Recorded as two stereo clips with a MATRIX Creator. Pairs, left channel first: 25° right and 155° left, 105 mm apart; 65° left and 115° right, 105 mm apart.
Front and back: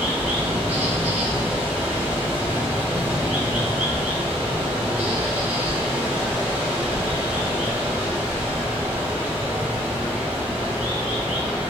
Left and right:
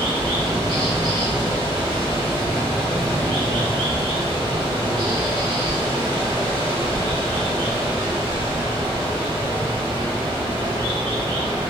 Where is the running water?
135° right, 0.8 m.